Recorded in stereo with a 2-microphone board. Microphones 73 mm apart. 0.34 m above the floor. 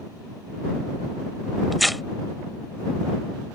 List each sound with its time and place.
1.7 s tearing paper: centre (ahead or behind)